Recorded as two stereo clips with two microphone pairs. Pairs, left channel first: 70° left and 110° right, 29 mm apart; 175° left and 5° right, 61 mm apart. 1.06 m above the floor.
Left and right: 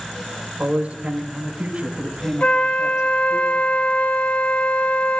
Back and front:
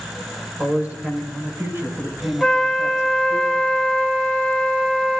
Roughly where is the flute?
Left.